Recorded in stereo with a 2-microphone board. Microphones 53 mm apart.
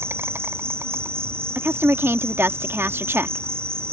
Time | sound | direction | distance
0.0 | an insect | 50° right (ahead or behind) | ?
1.6 | a woman speaking | 50° right (ahead or behind) | ?